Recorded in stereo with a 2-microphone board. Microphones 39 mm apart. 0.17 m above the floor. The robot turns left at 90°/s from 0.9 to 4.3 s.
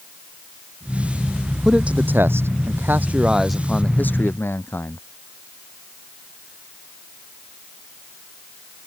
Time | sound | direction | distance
1.6 | a man speaking | 15° right | ?